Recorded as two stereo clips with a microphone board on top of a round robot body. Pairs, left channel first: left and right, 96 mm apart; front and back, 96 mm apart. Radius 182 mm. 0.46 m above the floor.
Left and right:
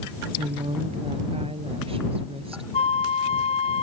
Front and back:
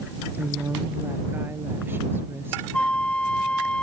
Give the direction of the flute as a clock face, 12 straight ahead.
9 o'clock.